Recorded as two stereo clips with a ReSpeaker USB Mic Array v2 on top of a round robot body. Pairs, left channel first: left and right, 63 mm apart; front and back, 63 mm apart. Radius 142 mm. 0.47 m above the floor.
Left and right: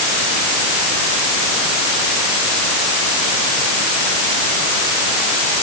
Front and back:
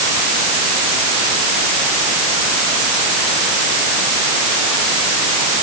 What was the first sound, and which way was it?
Only background noise.